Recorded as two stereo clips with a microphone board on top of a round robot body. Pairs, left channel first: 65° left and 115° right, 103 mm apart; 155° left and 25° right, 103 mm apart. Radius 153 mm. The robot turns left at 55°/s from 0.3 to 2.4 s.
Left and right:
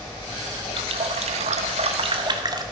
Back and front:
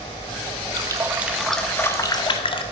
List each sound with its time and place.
0.8 s a running tap: 75° right, 0.8 m; by 2.6 s 165° right, 0.8 m